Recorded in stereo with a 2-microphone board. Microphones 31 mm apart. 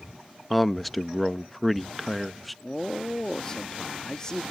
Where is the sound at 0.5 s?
Centre (ahead or behind).